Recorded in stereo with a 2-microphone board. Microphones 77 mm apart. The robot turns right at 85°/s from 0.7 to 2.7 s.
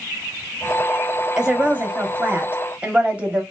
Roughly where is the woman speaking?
Centre.